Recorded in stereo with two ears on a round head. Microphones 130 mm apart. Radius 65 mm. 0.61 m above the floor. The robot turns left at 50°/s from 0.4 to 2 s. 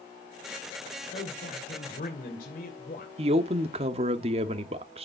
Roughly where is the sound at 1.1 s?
Behind left.